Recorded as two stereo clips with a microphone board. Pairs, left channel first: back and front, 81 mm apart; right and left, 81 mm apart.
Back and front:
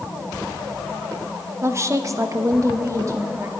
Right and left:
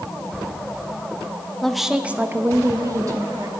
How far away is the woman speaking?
About 0.7 m.